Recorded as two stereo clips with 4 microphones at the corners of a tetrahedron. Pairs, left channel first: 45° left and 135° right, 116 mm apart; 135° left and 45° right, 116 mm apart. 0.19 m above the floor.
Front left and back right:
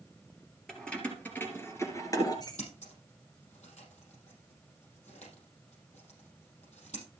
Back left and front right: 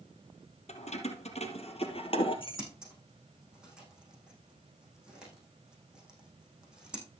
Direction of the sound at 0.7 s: 130° left.